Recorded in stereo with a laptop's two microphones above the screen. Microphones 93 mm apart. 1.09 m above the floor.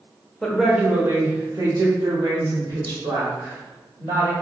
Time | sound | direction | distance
0.4 | a woman speaking | centre (ahead or behind) | 0.7 m